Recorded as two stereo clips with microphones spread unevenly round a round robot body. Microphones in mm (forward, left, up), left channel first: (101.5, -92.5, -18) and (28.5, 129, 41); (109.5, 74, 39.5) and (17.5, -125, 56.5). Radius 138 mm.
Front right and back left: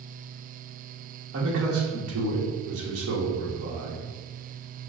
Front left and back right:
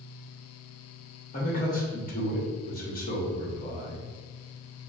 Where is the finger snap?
No finger snap in this recording.